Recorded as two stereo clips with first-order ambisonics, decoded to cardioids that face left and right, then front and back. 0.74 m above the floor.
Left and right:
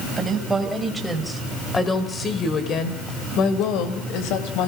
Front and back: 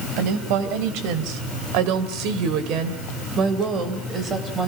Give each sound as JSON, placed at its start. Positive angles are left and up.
{"t": 0.2, "sound": "a woman speaking", "azimuth_deg": -165, "distance_m": 3.5}